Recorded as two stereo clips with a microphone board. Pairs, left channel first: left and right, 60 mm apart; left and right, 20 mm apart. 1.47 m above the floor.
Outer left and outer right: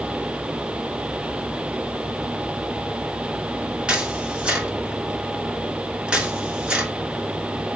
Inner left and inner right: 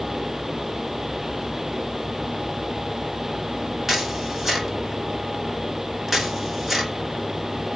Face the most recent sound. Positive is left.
turn(degrees=-15)  # may be behind; listen again after turning